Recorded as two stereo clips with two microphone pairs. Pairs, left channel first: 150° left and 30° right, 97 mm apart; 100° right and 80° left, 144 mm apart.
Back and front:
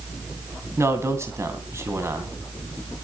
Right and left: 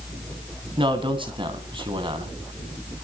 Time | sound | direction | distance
0.8 | a man speaking | 30° left | 3 m